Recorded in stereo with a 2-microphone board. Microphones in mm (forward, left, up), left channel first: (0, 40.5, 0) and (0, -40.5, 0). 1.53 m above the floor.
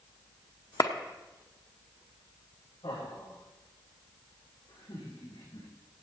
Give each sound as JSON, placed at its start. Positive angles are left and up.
{"t": 0.8, "sound": "a clap", "side_deg": 50, "distance_m": 0.9}
{"t": 2.8, "sound": "laughter", "side_deg": 75, "distance_m": 7.5}